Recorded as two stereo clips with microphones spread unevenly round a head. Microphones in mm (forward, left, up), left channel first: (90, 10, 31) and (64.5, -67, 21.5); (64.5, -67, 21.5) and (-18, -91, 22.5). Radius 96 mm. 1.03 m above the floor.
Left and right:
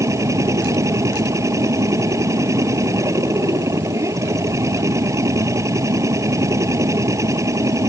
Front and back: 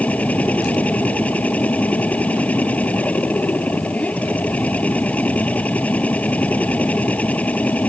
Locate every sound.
0.0 s a machine running: 55° right